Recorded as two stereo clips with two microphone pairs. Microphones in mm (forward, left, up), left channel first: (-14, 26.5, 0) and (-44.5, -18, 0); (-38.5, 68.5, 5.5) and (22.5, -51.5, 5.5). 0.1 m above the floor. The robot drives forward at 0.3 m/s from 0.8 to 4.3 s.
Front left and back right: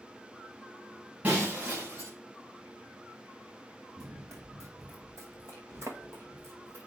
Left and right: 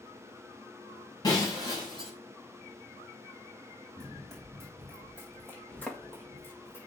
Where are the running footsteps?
150° right, 3.5 m; by 6.9 s 170° right, 5.5 m.